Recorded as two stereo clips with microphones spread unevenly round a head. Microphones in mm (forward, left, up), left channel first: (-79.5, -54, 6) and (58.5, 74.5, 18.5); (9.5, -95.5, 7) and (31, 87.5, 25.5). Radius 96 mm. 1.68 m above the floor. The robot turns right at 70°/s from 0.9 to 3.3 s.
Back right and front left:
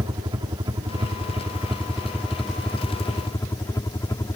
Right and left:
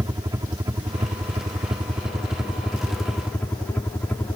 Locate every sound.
0.0 s a helicopter: 45° left; by 4.4 s 145° right